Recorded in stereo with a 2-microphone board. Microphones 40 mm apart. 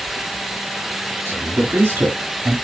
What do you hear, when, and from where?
1.2 s a man speaking: 70° right (ahead or behind), 3 m; by 2.5 s 65° right (ahead or behind), 1.7 m